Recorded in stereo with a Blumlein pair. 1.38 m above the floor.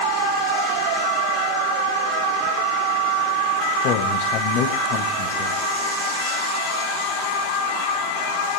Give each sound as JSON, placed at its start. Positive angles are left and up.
{"t": 3.8, "sound": "a woman speaking", "azimuth_deg": 40, "distance_m": 1.8}